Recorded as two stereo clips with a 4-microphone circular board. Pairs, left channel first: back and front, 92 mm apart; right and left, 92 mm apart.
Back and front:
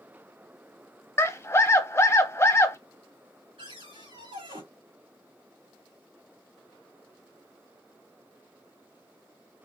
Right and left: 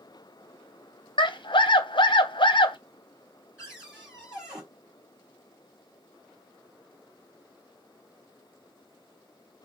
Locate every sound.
1.2 s a scream: 120° right, 0.7 m
3.6 s a cupboard door: 5° left, 3.5 m